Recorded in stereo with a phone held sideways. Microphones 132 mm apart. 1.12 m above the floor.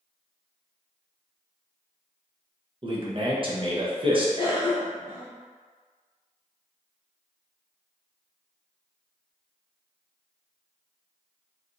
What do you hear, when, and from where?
2.8 s a man speaking: 40° right (ahead or behind), 0.8 m
4.4 s a cough: 40° left (ahead or behind), 1.2 m